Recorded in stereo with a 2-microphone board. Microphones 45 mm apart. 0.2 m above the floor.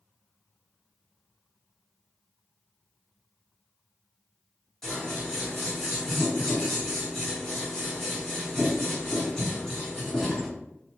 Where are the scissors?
5° left (ahead or behind), 1.6 m.